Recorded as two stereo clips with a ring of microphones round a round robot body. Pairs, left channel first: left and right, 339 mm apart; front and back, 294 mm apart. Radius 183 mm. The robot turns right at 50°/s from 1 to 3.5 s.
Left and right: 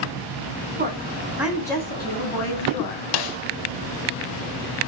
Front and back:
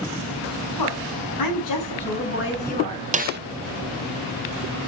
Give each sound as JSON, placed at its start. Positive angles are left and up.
{"t": 0.8, "sound": "a woman speaking", "azimuth_deg": -25, "distance_m": 7.5}
{"t": 3.1, "sound": "a snare drum", "azimuth_deg": 110, "distance_m": 0.8}